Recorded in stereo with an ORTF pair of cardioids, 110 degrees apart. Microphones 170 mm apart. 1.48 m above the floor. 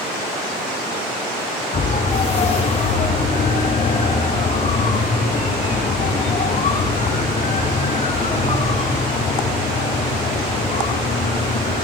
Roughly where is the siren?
Ahead left.